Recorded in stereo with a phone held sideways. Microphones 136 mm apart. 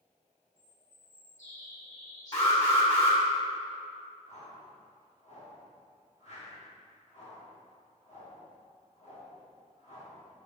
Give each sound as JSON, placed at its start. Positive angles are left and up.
{"t": 0.6, "sound": "a bird", "side_deg": 60, "distance_m": 2.0}
{"t": 2.3, "sound": "an alarm", "side_deg": 45, "distance_m": 2.0}
{"t": 4.3, "sound": "a whoosh", "side_deg": 55, "distance_m": 1.5}